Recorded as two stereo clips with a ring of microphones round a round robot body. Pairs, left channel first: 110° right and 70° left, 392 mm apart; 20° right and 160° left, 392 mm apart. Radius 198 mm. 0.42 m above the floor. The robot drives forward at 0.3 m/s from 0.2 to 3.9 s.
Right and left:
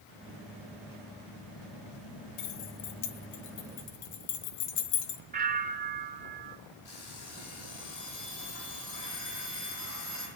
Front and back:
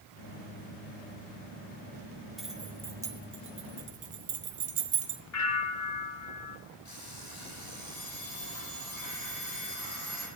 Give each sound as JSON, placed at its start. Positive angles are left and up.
{"t": 2.4, "sound": "keys jangling", "azimuth_deg": -110, "distance_m": 1.2}
{"t": 5.3, "sound": "a bell", "azimuth_deg": 5, "distance_m": 1.4}
{"t": 6.8, "sound": "an alarm clock", "azimuth_deg": -65, "distance_m": 8.5}